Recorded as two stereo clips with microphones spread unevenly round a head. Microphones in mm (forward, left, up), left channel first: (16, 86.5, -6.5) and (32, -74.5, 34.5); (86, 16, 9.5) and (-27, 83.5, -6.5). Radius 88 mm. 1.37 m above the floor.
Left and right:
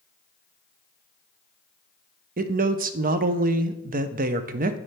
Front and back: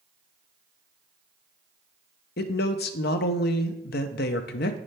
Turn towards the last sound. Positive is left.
turn(degrees=-45)